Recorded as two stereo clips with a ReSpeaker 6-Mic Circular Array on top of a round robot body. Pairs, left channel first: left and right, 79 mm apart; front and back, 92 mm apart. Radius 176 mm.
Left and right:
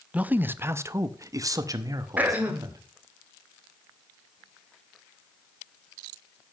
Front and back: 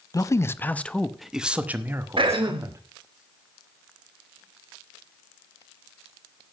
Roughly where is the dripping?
I don't hear dripping.